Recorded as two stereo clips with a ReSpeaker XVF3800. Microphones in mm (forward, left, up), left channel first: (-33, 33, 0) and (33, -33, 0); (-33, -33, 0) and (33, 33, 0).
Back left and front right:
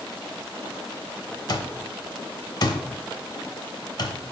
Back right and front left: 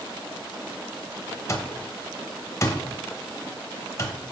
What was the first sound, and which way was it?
An alarm clock, 170° left.